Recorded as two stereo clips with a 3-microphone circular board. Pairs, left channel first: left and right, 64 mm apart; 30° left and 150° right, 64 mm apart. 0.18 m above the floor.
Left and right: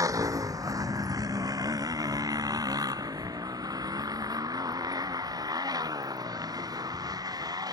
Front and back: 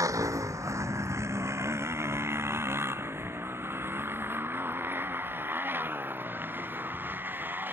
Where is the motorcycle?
120° right; by 7.8 s 90° right.